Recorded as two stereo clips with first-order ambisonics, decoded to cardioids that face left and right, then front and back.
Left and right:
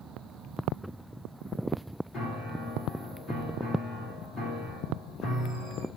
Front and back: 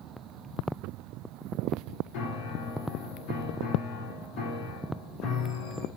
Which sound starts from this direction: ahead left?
A piano, at 2.1 s.